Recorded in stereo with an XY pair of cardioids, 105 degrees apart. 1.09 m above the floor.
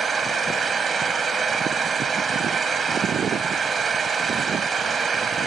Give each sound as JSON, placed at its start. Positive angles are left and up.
{"t": 0.0, "sound": "an engine running", "azimuth_deg": -40}